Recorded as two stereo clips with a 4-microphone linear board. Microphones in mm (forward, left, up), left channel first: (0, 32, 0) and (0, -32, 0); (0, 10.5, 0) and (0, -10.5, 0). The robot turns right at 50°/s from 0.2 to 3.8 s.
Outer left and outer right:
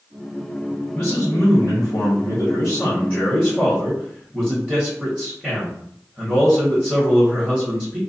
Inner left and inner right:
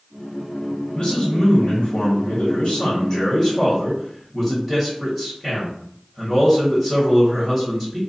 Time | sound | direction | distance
0.9 | a man speaking | 50° left | 1.1 m